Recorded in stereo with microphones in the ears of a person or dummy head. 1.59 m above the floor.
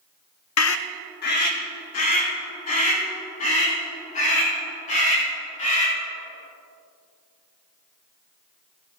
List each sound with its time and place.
0.6 s a scream: 85° left, 0.6 m; by 5.9 s 45° left (ahead or behind), 7.5 m